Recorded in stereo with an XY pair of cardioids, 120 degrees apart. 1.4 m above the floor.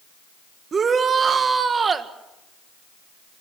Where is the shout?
35° right, 1.7 m.